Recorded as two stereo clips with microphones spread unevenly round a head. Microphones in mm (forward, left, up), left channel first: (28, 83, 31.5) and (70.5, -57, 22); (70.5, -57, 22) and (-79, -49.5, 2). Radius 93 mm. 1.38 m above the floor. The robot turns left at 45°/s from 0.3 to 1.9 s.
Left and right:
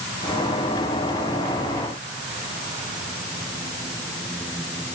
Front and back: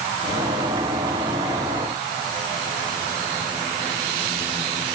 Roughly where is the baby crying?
No baby crying in this recording.